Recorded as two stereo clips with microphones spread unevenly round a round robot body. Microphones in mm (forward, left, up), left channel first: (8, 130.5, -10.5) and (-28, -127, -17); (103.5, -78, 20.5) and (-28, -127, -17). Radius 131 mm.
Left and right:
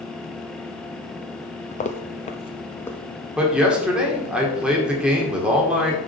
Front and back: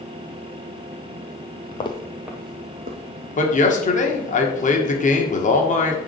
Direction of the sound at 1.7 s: 25° left.